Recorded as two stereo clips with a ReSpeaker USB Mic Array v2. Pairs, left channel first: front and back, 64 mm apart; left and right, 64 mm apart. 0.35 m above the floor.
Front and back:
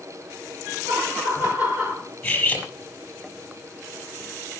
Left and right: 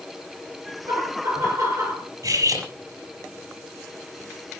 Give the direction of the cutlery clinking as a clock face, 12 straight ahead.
2 o'clock.